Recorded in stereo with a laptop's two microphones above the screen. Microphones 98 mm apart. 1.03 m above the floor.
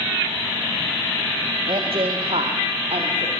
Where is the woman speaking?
60° right (ahead or behind), 1.5 m; by 3.3 s 70° right (ahead or behind), 3 m.